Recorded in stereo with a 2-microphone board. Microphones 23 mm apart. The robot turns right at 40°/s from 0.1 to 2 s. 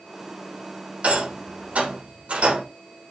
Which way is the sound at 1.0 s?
70° right (ahead or behind).